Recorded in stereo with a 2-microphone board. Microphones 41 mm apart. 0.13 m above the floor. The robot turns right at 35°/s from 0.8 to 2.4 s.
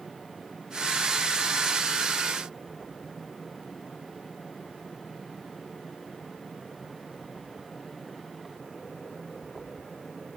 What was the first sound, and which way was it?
Only background noise.